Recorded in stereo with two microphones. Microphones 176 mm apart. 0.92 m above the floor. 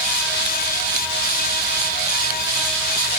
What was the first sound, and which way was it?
Only background noise.